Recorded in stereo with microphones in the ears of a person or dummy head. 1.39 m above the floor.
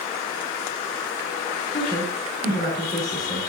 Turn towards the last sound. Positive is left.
turn(degrees=35)  # may be behind; listen again after turning